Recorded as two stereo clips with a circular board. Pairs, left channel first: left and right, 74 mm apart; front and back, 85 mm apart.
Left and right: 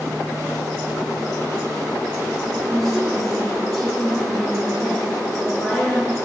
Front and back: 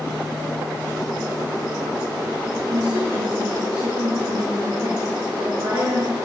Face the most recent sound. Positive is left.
turn(degrees=175)